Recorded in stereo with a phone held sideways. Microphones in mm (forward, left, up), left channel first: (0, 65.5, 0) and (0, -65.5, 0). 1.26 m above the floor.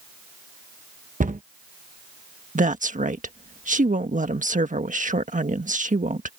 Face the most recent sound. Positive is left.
turn(degrees=-80)